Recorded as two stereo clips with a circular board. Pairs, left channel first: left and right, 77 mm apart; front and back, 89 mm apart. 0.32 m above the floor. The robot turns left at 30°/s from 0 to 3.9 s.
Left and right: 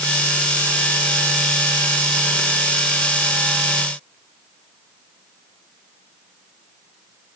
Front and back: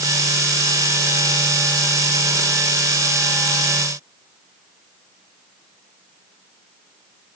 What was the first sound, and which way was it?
Only background noise.